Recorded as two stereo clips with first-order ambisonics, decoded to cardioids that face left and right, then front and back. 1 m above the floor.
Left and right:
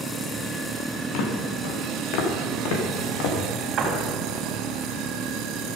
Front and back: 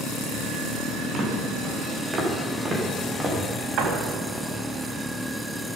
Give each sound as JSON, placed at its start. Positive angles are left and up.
{"t": 1.1, "sound": "footsteps", "azimuth_deg": 120, "distance_m": 3.5}
{"t": 3.8, "sound": "a door slam", "azimuth_deg": -145, "distance_m": 3.5}